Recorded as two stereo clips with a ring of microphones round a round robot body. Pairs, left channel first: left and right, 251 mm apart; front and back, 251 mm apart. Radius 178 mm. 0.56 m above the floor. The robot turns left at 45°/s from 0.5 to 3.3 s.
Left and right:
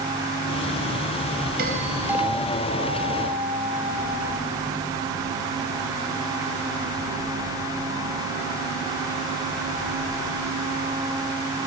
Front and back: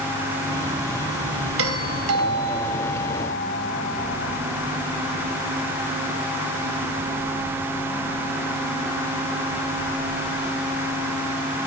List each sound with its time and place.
1.6 s a doorbell: 150° right, 4 m; by 4.4 s 130° left, 4 m